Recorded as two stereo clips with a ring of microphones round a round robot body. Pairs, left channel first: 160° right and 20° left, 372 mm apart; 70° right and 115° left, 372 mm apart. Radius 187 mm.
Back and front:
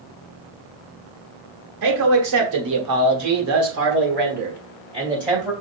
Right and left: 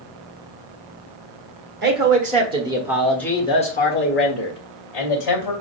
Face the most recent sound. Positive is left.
turn(degrees=-60)